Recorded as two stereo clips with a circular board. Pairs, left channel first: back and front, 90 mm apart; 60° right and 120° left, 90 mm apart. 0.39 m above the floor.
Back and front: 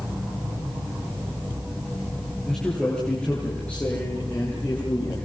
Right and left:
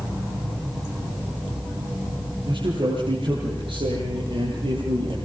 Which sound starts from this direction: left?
A man speaking, at 2.5 s.